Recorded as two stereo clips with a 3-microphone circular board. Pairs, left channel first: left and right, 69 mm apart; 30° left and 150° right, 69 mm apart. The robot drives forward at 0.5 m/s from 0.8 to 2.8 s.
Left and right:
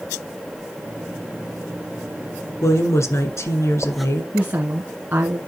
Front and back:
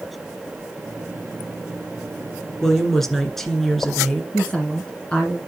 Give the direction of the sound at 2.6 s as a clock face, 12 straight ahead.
8 o'clock.